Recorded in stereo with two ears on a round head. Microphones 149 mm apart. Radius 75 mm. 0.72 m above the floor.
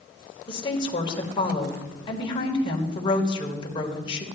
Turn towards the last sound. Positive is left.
turn(degrees=30)  # may be behind; listen again after turning